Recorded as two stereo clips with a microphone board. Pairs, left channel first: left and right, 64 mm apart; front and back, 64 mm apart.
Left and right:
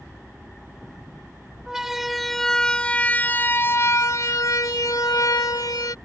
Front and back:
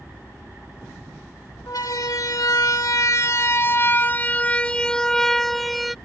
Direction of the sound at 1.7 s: 10° right.